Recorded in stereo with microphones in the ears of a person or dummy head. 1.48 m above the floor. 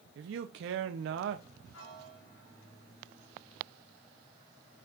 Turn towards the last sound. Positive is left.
turn(degrees=75)  # may be behind; listen again after turning